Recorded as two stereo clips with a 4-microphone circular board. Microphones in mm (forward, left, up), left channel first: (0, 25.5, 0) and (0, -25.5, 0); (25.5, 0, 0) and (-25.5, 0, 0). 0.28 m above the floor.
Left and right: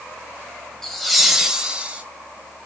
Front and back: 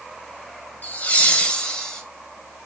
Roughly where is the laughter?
Ahead.